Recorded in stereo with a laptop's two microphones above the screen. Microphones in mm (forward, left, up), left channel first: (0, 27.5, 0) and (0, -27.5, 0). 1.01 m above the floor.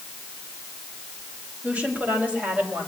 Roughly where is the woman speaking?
Right.